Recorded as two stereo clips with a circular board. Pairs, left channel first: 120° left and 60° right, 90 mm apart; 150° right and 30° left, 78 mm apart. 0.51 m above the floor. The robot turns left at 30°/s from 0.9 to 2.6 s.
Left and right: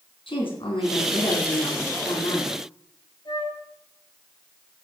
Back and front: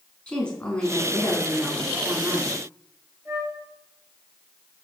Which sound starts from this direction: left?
A flute, at 3.2 s.